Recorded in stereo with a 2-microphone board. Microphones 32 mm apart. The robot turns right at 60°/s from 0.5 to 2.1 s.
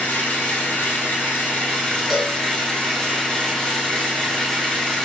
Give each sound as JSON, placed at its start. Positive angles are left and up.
{"t": 0.0, "sound": "an engine running", "azimuth_deg": 65, "distance_m": 1.5}
{"t": 2.1, "sound": "a cowbell", "side_deg": 10, "distance_m": 1.3}